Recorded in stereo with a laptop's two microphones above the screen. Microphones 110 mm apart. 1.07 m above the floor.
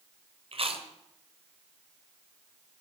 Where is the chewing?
60° right (ahead or behind), 2 m.